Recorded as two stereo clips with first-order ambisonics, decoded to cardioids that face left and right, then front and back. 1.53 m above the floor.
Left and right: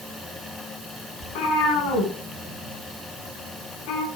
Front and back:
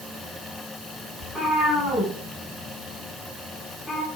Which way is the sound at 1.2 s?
85° left.